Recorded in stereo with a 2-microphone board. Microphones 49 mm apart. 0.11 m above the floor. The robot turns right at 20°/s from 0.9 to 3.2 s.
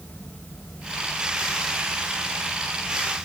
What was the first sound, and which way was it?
Only background noise.